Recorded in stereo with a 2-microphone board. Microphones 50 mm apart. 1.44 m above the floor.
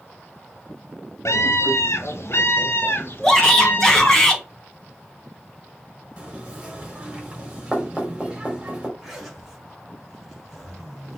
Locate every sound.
1.2 s a scream: 70° left (ahead or behind), 0.9 m; by 4.2 s 45° left (ahead or behind), 2 m
3.2 s a shout: 10° left (ahead or behind), 2.5 m
6.2 s knocking: 20° right (ahead or behind), 3.5 m
9.0 s a zipper: 5° right (ahead or behind), 3 m